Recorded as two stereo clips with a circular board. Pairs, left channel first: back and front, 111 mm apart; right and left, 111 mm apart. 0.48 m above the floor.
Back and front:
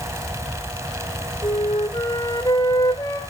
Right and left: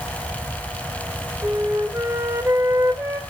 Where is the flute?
145° left, 1.7 m.